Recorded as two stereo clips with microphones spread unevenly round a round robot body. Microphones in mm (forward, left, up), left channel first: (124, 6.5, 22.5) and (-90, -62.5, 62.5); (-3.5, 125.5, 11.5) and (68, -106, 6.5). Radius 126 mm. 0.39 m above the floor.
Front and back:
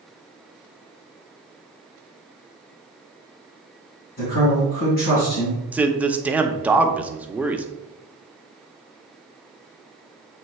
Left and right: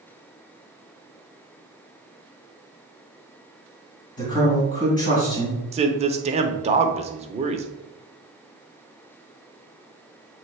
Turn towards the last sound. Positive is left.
turn(degrees=-65)